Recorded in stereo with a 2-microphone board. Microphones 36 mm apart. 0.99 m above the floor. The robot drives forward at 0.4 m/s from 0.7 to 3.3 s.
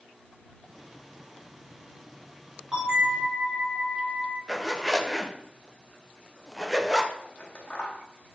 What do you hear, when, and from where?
2.7 s a bell: 20° right (ahead or behind), 3.5 m; by 4.4 s 25° right (ahead or behind), 3 m
4.5 s a zipper: 5° right (ahead or behind), 0.7 m
7.2 s scissors: 30° left (ahead or behind), 1.3 m